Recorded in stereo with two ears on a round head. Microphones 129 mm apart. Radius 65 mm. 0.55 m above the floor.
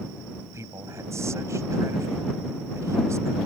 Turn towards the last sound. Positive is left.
turn(degrees=-20)  # may be behind; listen again after turning